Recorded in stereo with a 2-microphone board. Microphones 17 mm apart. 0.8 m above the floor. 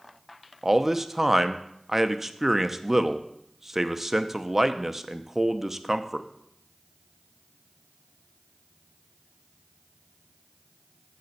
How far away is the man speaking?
About 0.6 m.